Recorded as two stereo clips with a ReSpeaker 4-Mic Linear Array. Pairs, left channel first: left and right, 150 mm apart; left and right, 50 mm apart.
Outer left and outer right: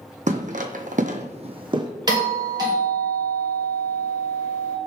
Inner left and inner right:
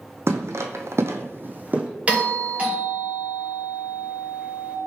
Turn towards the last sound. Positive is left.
turn(degrees=-30)  # may be behind; listen again after turning